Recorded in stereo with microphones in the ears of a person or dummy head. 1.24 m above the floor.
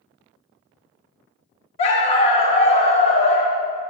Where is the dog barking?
40° left (ahead or behind), 1.0 m.